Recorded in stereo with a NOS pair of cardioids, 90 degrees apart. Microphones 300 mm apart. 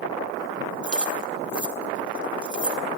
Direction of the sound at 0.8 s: 5° right.